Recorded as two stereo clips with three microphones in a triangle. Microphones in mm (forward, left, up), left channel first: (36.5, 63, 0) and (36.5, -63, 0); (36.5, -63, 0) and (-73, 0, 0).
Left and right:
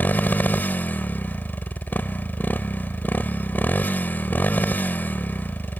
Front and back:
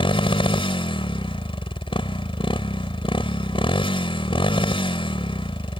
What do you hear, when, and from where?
0.0 s a motorcycle: 15° left